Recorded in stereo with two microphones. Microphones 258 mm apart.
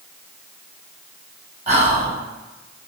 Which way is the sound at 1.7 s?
30° right (ahead or behind).